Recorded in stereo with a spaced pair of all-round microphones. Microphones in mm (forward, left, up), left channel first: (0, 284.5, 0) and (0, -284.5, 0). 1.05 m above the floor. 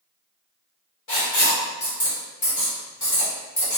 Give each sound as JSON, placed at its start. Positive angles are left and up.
{"t": 1.1, "sound": "writing", "side_deg": 55, "distance_m": 1.3}